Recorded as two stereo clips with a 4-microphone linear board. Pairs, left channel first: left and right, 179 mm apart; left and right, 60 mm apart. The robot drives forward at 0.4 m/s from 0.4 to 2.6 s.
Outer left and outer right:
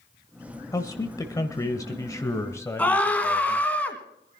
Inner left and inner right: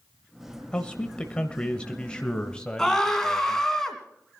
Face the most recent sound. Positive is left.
turn(degrees=10)  # may be behind; listen again after turning